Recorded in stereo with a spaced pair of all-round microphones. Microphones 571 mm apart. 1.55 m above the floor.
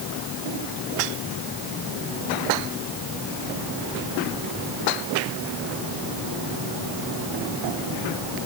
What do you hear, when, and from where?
Only background noise.